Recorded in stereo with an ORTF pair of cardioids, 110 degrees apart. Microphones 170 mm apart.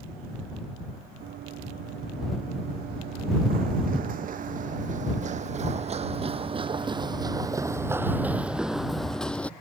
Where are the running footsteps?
70° right; by 9.5 s 10° left.